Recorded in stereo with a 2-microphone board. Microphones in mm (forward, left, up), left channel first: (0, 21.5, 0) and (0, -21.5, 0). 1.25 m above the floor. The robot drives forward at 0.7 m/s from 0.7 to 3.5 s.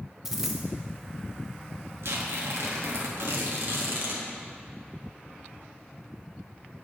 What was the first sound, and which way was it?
A dropped coin, 5° right (ahead or behind).